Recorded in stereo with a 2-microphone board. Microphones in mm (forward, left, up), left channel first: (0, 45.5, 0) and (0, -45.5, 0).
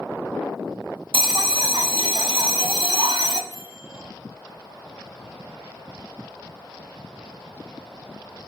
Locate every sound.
1.1 s a bell: 65° right (ahead or behind), 0.5 m
3.5 s a microwave: 75° left (ahead or behind), 3 m